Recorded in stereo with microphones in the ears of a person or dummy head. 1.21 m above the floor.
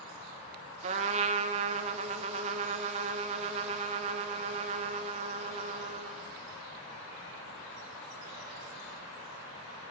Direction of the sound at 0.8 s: 30° right (ahead or behind).